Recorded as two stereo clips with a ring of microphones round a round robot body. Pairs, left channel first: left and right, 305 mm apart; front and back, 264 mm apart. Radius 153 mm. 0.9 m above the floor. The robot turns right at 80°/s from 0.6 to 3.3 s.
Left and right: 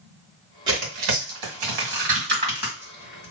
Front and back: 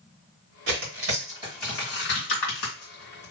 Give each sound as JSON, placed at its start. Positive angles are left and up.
{"t": 0.7, "sound": "tearing paper", "azimuth_deg": -165, "distance_m": 2.0}